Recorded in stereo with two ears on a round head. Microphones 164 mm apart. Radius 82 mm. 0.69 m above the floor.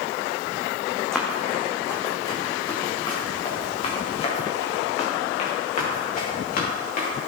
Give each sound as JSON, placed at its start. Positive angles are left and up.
{"t": 1.1, "sound": "running footsteps", "side_deg": 5, "distance_m": 3.0}